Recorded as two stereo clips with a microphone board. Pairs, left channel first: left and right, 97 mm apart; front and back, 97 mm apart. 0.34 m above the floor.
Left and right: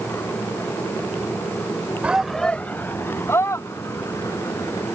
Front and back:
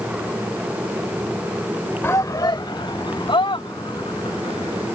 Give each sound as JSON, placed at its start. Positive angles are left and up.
{"t": 2.0, "sound": "a shout", "azimuth_deg": -30}